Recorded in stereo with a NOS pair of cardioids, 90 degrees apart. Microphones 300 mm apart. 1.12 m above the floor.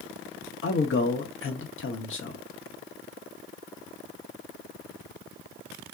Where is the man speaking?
45° left, 0.9 m.